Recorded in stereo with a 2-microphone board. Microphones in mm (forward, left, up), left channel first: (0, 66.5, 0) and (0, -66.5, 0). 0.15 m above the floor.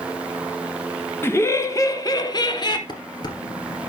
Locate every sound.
1.2 s laughter: 20° left (ahead or behind), 1.1 m; by 2.8 s 40° left (ahead or behind), 1.4 m
2.9 s dishes clattering: 35° left (ahead or behind), 1.9 m